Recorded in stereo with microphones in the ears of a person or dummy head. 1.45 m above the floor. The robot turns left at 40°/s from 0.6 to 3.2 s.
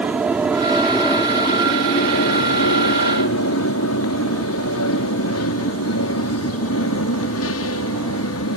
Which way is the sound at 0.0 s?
5° right (ahead or behind).